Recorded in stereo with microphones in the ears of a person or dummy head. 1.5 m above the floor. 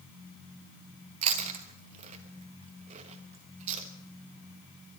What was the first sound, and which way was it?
Chewing, 35° right (ahead or behind).